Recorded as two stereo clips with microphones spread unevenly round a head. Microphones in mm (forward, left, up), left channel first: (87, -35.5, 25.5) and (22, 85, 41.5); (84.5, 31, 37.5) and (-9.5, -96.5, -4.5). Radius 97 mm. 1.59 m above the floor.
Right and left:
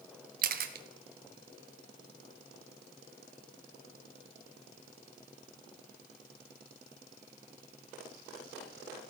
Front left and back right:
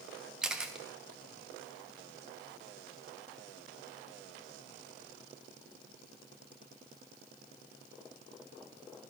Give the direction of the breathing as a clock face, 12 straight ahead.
No breathing in this recording.